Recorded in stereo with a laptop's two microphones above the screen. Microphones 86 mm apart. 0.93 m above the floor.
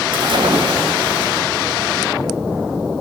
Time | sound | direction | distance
0.1 | a splash | 70° right (ahead or behind) | 3 m